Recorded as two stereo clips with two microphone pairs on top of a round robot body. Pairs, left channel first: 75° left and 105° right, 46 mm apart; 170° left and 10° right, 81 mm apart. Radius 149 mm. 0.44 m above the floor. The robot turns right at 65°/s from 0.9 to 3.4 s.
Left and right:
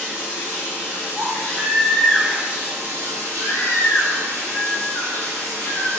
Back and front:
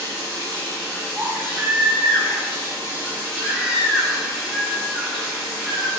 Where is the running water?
100° left, 0.9 m; by 6.0 s 100° right, 0.9 m.